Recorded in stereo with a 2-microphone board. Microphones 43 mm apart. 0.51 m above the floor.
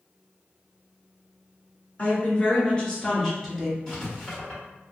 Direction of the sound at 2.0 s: 40° left (ahead or behind).